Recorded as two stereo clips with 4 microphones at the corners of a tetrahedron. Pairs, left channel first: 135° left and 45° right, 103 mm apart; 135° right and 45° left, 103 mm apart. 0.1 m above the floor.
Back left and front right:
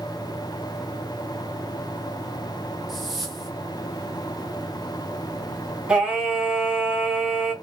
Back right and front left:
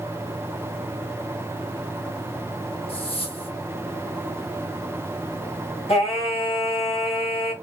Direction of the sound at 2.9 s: 135° right.